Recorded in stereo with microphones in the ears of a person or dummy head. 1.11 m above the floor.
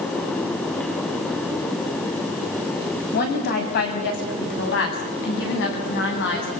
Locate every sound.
3.1 s a woman speaking: 50° left (ahead or behind), 7.5 m; by 6.5 s 65° left (ahead or behind), 9.5 m